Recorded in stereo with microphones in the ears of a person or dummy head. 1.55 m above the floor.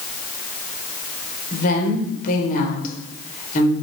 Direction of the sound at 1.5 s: 50° left (ahead or behind).